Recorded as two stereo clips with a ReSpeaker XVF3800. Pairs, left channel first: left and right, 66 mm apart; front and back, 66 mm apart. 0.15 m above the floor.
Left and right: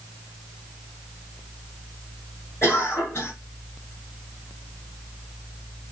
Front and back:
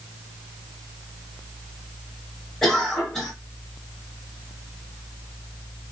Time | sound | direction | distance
2.6 | a cough | 75° left | 2.0 m